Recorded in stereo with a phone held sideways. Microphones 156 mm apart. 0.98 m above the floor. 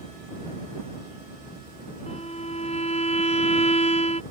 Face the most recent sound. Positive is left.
turn(degrees=45)  # may be behind; listen again after turning